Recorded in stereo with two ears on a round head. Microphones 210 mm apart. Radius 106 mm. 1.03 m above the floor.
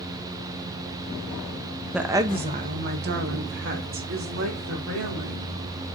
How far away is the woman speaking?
About 0.5 m.